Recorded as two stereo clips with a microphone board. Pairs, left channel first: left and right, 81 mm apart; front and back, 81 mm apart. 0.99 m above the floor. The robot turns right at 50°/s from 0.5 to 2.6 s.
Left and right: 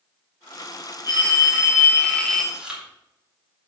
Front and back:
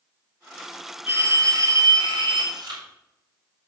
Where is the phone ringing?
115° left, 2 m; by 2.4 s 175° right, 2 m.